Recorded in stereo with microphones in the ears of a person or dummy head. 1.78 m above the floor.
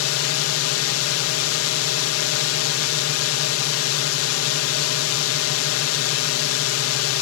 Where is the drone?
90° left.